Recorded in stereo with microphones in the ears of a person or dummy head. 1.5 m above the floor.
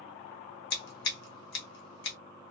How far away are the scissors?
About 1.0 m.